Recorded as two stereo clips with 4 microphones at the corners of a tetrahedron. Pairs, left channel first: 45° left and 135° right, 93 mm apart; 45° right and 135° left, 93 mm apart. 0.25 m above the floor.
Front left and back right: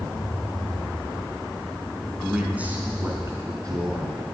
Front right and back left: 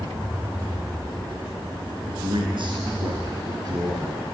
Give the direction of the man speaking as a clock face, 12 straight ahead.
7 o'clock.